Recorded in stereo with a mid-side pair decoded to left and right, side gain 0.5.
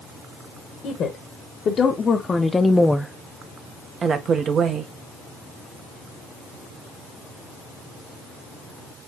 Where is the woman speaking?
60° left, 1.2 m; by 4.9 s 60° right, 1.1 m.